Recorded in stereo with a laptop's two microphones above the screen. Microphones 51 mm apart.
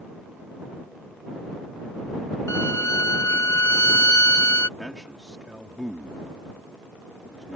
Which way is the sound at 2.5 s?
75° left (ahead or behind).